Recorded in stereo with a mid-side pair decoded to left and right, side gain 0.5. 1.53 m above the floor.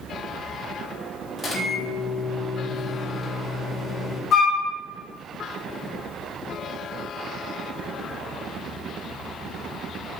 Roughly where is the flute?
Ahead left.